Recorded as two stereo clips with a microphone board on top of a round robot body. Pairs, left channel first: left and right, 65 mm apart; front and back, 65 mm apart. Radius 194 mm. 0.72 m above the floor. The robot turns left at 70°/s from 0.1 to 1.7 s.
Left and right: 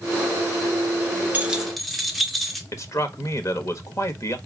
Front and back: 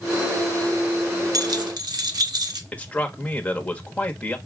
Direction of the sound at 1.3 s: 155° right.